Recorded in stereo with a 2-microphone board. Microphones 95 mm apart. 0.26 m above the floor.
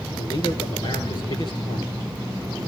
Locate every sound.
0.2 s a man speaking: 55° left (ahead or behind), 4 m